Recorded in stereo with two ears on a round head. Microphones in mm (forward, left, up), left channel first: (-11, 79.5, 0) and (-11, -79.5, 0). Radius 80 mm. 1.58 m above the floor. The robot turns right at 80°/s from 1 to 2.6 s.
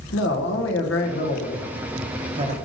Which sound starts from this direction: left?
A man speaking, at 0.1 s.